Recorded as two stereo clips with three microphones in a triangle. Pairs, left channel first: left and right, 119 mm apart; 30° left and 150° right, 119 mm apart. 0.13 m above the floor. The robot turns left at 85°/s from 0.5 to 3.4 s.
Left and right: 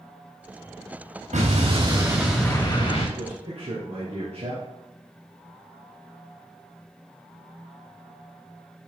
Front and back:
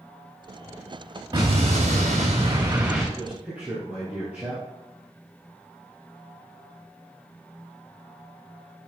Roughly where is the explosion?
Right.